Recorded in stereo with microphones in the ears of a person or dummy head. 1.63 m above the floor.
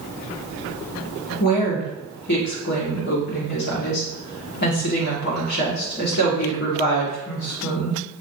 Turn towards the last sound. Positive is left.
turn(degrees=55)  # may be behind; listen again after turning